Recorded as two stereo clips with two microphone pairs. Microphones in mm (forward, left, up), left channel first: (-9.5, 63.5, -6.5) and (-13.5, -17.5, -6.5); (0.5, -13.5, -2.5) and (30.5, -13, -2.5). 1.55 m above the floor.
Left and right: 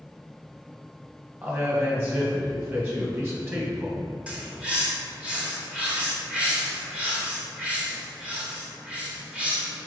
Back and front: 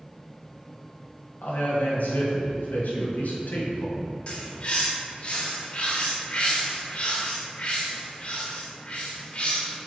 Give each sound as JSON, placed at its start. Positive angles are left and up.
{"t": 1.4, "sound": "a man speaking", "azimuth_deg": -155, "distance_m": 1.9}
{"t": 4.3, "sound": "a bird", "azimuth_deg": -165, "distance_m": 1.2}